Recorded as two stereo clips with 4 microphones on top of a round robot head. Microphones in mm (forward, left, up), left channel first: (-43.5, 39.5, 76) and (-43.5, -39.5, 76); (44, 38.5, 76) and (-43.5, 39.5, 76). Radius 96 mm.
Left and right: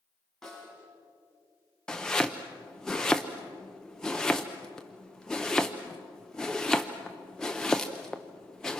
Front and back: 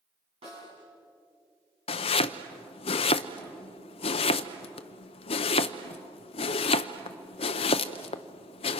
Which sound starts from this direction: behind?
A snare drum, at 0.4 s.